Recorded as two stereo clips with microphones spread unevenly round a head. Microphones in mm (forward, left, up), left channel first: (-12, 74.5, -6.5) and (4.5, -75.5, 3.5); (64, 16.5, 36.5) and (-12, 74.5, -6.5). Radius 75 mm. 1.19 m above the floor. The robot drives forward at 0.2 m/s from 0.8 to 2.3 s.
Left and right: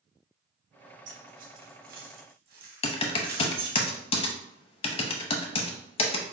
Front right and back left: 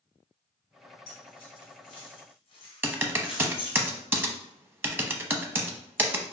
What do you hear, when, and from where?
1.1 s keys jangling: 50° right, 1.2 m; by 3.8 s 60° right, 1.0 m
2.8 s typing on a keyboard: 55° left, 0.6 m